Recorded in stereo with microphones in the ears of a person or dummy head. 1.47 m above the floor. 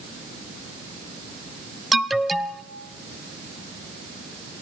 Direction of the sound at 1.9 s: Centre (ahead or behind).